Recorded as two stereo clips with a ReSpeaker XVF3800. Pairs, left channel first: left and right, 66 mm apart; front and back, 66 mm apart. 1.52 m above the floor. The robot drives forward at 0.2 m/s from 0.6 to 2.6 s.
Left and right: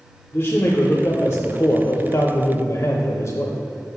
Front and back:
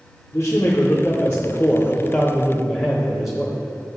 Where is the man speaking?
45° left, 0.7 m; by 3.6 s 90° left, 0.5 m.